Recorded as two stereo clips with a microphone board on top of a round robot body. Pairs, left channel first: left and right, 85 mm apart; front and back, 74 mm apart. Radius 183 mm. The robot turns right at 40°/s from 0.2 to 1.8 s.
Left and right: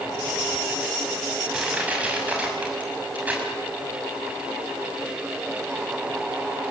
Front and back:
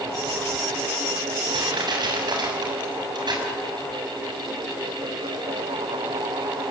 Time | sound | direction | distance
1.5 | crushing | 175° right | 7 m